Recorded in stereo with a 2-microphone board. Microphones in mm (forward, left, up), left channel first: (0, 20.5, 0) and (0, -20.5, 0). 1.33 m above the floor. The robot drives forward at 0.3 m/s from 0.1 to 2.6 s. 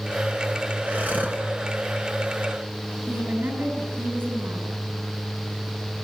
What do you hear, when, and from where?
0.9 s breathing: 40° right (ahead or behind), 2 m
3.1 s a woman speaking: 70° right (ahead or behind), 8.5 m